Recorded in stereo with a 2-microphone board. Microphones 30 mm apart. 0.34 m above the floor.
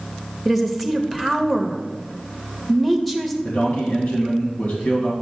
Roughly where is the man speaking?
Left.